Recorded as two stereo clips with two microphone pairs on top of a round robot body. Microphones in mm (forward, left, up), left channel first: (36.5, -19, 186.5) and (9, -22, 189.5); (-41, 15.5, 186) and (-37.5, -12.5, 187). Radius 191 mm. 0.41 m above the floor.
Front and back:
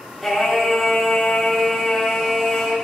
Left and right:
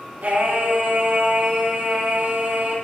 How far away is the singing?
About 5.5 m.